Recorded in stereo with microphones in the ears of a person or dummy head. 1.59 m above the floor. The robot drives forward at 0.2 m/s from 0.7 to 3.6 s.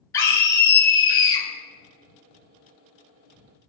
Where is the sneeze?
I don't hear a sneeze.